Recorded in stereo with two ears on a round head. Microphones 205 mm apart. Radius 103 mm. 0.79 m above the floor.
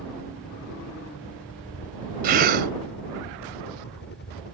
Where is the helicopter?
60° left (ahead or behind); by 4.5 s 45° left (ahead or behind).